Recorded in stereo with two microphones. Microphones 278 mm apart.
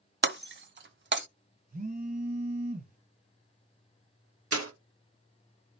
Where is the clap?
55° right (ahead or behind), 1.4 m.